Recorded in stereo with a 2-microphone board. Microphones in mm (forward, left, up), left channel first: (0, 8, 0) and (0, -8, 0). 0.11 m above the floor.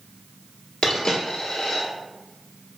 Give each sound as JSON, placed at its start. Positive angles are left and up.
{"t": 0.8, "sound": "a dropped coin", "side_deg": 50, "distance_m": 1.0}